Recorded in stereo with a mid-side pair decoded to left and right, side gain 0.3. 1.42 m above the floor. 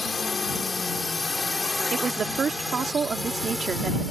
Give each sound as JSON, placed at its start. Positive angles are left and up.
{"t": 0.0, "sound": "a drone", "azimuth_deg": 45}
{"t": 1.9, "sound": "a woman speaking", "azimuth_deg": -65}